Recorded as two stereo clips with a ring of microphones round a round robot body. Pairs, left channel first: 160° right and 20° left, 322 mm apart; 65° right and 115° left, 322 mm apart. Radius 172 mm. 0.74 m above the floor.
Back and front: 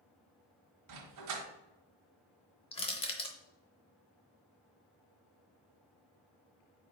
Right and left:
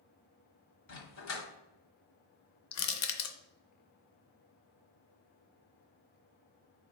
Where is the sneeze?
No sneeze in this recording.